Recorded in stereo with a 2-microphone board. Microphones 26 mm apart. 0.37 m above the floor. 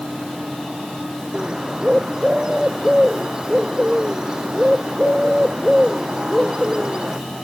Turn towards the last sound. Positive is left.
turn(degrees=-25)  # may be behind; listen again after turning